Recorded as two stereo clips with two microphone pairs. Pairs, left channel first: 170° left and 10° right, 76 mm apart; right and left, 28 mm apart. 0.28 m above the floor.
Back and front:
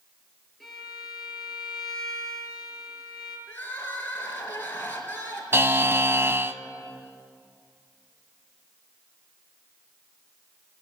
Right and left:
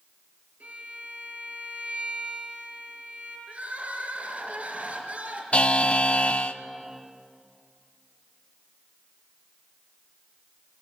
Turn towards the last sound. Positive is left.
turn(degrees=-60)